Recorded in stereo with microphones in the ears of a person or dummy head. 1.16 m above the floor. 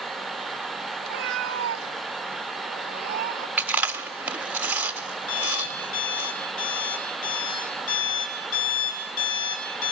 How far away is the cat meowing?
About 1.1 m.